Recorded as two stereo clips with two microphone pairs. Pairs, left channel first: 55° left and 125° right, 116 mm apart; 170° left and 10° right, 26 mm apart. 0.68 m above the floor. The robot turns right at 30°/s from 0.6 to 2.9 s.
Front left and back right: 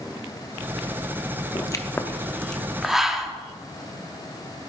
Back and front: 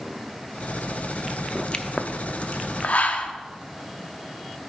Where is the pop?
110° left, 0.6 m; by 3.3 s 150° left, 0.6 m.